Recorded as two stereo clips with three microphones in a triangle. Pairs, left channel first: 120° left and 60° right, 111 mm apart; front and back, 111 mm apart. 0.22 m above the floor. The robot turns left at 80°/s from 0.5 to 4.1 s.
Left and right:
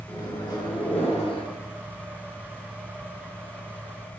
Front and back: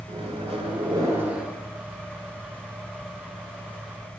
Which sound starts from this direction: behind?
A microwave, at 0.1 s.